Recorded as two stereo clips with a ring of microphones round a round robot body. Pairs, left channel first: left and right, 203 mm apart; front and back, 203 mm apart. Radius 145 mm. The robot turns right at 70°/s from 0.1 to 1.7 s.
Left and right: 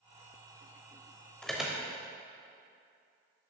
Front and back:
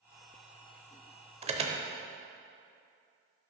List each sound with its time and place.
1.4 s an alarm: 170° left, 0.8 m; by 1.8 s 170° right, 0.8 m